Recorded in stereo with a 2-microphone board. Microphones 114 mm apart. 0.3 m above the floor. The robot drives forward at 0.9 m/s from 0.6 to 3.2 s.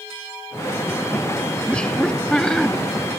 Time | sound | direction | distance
1.7 | laughter | 10° left (ahead or behind) | ?